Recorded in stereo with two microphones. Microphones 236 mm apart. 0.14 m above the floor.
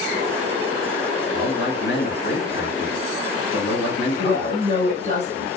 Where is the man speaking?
55° left (ahead or behind), 1.8 m.